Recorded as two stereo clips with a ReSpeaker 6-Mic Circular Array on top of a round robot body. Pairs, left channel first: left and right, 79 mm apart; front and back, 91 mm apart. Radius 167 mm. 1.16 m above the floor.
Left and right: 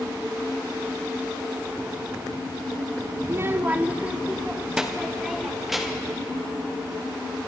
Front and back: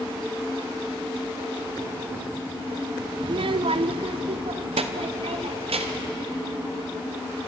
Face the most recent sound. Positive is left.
turn(degrees=180)